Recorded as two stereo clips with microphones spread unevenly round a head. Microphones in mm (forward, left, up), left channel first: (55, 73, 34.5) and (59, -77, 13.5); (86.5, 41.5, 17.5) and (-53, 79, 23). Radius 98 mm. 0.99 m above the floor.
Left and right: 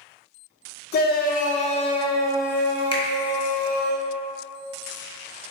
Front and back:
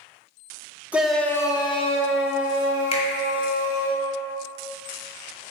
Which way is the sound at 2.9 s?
30° left.